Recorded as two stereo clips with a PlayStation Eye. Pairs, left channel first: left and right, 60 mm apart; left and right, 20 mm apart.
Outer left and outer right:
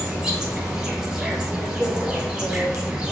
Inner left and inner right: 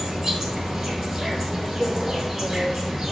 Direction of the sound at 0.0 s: 15° right (ahead or behind).